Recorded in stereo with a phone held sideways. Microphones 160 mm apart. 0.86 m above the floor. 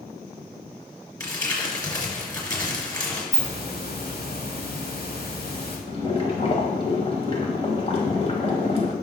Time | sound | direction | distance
1.2 | crumpling | 25° left (ahead or behind) | 3 m
3.3 | a hiss | 85° left | 2.5 m
5.9 | boiling | 40° left (ahead or behind) | 2.0 m